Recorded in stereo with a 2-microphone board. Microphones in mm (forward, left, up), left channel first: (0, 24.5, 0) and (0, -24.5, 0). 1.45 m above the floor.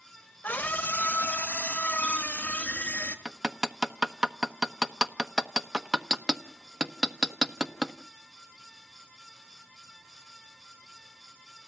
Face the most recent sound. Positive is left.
turn(degrees=-10)  # may be behind; listen again after turning